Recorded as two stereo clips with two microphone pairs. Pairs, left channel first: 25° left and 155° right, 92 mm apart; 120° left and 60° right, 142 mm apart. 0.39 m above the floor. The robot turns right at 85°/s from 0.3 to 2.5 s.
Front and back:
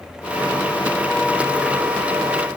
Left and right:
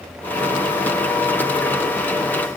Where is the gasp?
I don't hear a gasp.